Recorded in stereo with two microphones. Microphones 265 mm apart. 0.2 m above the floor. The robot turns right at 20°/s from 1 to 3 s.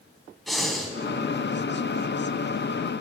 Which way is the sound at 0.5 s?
Centre (ahead or behind).